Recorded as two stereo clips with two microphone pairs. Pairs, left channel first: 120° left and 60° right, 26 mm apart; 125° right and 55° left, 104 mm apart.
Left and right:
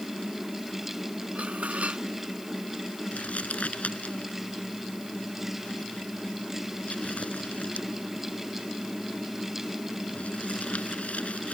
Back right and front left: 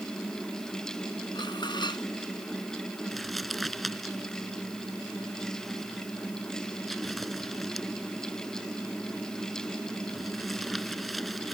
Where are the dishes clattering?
80° right.